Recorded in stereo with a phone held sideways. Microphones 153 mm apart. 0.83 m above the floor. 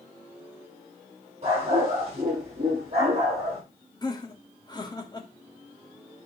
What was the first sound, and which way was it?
A dog barking, 45° right (ahead or behind).